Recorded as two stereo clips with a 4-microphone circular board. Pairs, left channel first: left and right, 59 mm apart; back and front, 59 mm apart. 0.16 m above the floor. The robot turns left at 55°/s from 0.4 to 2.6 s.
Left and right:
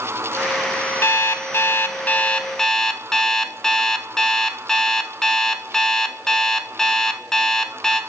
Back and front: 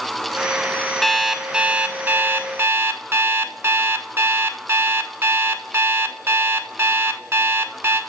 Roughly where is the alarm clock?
Left.